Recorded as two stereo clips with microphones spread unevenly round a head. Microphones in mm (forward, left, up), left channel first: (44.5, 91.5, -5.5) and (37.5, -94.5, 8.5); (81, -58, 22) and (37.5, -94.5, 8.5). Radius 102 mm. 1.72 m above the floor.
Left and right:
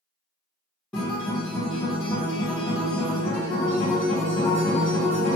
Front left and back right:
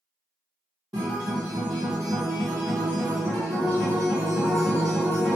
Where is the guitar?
175° left, 1.2 m.